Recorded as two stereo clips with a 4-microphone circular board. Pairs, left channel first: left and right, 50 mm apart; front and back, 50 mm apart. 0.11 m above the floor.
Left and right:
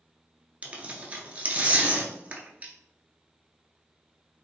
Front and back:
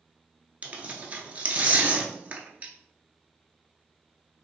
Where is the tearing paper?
140° right, 0.6 m.